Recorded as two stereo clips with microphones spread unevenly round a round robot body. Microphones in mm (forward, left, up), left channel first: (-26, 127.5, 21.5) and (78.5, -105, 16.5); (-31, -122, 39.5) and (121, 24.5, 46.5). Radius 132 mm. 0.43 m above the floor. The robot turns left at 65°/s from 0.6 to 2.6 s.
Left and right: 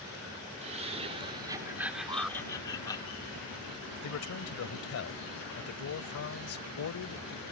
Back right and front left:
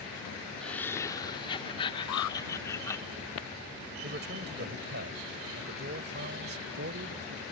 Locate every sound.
0.6 s laughter: 60° right; by 3.0 s 175° left
2.1 s an alarm: 140° right; by 2.4 s 160° right
4.0 s a man speaking: 90° left